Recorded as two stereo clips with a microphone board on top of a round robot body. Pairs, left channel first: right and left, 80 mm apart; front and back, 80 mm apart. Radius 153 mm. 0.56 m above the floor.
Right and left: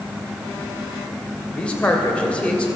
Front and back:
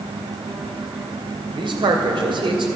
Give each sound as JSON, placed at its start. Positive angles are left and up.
{"t": 1.6, "sound": "a man speaking", "azimuth_deg": -170, "distance_m": 2.5}